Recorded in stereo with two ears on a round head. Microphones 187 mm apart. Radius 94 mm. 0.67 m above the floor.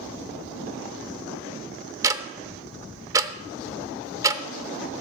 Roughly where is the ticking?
Centre.